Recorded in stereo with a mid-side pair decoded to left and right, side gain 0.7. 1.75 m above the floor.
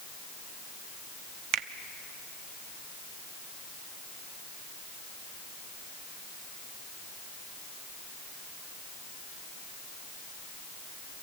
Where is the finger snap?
65° right, 0.8 m.